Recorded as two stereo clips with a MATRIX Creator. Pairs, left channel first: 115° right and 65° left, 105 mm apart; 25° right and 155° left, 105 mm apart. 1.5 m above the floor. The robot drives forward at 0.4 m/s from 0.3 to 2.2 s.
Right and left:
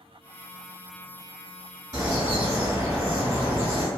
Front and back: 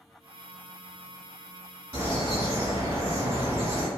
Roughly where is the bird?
Left.